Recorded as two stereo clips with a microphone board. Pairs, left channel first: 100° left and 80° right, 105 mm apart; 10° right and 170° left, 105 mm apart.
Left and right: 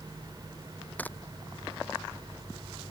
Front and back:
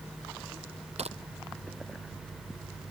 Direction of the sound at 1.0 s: 175° left.